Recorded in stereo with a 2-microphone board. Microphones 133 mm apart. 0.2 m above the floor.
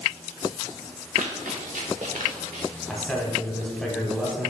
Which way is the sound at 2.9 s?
Centre (ahead or behind).